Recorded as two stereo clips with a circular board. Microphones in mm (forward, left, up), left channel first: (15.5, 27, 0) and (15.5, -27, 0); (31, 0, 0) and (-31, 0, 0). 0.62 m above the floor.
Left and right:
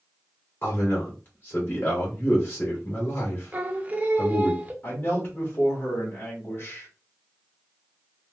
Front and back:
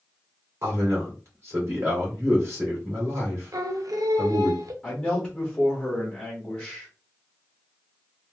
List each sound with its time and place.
0.6 s a man speaking: 135° left, 2.0 m
3.5 s singing: 155° right, 0.6 m
4.8 s a man speaking: 95° left, 1.3 m